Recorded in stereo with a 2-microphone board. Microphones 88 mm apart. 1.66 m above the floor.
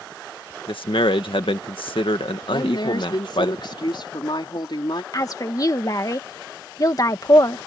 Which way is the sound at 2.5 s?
60° left (ahead or behind).